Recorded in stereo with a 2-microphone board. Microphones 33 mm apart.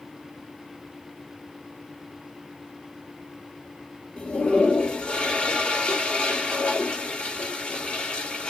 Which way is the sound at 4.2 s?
40° left (ahead or behind).